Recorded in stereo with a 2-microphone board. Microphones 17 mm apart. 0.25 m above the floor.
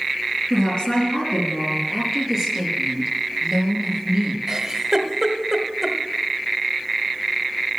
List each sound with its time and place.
0.5 s a woman speaking: 65° left (ahead or behind), 5 m
1.9 s a woman speaking: 15° right (ahead or behind), 5 m
4.5 s a giggle: 25° right (ahead or behind), 1.3 m